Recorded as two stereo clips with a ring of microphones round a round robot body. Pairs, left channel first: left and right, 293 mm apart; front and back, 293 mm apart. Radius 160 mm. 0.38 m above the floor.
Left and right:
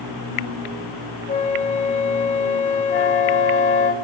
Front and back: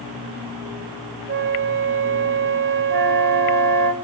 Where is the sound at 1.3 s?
145° left, 1.7 m.